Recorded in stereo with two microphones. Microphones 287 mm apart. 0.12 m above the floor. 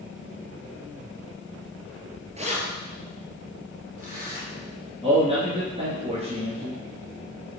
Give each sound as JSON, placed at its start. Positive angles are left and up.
{"t": 2.4, "sound": "keys jangling", "side_deg": -25, "distance_m": 1.4}
{"t": 5.0, "sound": "a man speaking", "side_deg": -20, "distance_m": 2.0}